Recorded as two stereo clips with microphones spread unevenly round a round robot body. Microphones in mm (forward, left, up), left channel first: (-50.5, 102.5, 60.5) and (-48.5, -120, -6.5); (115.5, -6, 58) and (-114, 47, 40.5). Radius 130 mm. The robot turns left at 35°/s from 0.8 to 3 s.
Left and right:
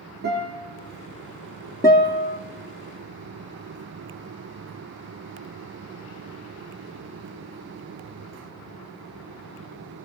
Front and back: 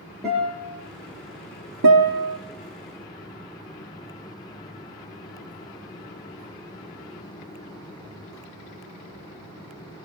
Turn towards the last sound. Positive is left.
turn(degrees=125)